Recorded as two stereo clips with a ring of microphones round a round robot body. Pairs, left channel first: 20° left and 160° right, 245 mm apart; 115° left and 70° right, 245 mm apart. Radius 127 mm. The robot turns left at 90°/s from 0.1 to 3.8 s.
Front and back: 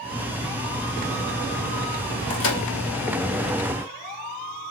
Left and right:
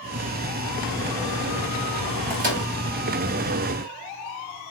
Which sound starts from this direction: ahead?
A microwave, at 2.3 s.